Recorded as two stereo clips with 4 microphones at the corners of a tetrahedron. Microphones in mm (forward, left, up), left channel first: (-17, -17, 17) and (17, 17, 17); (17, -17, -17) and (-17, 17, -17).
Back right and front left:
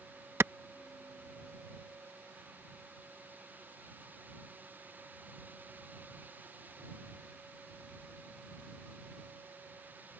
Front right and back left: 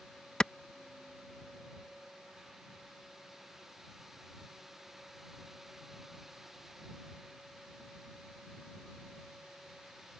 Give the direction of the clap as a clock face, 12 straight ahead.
11 o'clock.